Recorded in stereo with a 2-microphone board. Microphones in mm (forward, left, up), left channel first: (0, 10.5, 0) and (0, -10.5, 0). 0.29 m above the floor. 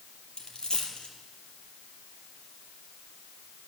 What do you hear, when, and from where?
0.4 s a dropped coin: 50° left (ahead or behind), 4 m